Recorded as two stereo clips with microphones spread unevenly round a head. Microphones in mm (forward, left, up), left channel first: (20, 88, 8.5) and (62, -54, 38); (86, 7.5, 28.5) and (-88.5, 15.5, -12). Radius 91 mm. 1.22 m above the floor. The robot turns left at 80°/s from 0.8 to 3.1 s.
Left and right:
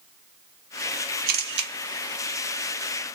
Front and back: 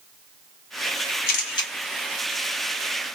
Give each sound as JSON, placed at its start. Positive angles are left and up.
{"t": 1.3, "sound": "a camera shutter", "azimuth_deg": -45, "distance_m": 1.0}